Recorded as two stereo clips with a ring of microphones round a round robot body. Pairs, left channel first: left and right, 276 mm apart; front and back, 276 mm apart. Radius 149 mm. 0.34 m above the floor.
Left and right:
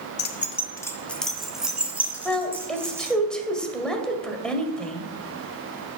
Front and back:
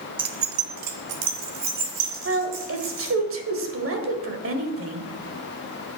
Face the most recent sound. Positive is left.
turn(degrees=175)